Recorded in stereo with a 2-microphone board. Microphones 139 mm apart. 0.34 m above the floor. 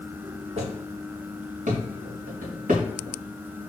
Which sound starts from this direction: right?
Footsteps, at 0.6 s.